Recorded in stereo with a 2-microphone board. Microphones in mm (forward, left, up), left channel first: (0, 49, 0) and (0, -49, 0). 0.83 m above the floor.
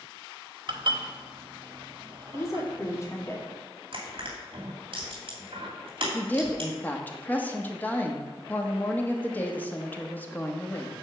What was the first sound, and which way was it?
Dishes clattering, 55° right (ahead or behind).